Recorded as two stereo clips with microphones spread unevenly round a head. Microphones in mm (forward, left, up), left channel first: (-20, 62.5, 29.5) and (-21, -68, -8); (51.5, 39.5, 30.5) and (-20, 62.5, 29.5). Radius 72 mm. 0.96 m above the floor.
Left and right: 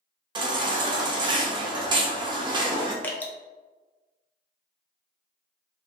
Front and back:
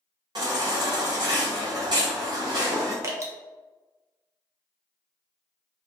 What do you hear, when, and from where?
0.3 s a baby crying: 145° right, 0.6 m
3.0 s dripping: straight behind, 0.5 m